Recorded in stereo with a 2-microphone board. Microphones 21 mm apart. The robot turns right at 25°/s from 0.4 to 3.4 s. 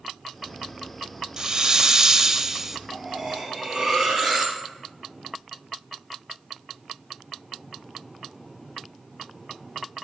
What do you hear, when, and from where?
1.4 s a hiss: 65° right, 0.5 m; by 2.8 s 30° right, 0.5 m
2.9 s cutlery clinking: 40° right (ahead or behind), 3.5 m; by 4.6 s 25° right (ahead or behind), 3.5 m